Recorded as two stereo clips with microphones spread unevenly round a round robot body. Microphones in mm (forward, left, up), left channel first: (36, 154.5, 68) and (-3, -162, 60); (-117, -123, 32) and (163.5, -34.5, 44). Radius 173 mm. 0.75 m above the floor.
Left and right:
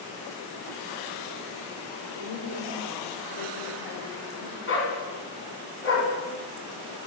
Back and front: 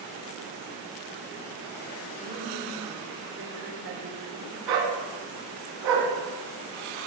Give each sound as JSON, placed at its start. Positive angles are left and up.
{"t": 2.2, "sound": "a woman speaking", "azimuth_deg": 85, "distance_m": 3.5}
{"t": 4.7, "sound": "a dog barking", "azimuth_deg": 30, "distance_m": 3.0}